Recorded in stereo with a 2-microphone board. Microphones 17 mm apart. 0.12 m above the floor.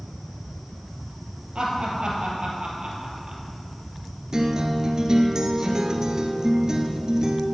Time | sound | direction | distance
1.6 | laughter | 65° right (ahead or behind) | 3.5 m
4.3 | a guitar | 40° right (ahead or behind) | 1.3 m